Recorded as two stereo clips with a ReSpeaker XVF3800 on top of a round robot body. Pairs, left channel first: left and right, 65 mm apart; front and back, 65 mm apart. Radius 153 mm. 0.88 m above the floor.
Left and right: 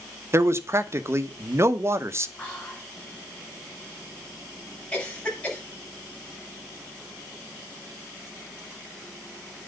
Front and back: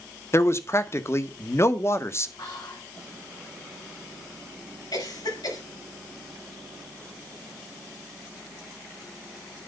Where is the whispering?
20° left, 2.5 m.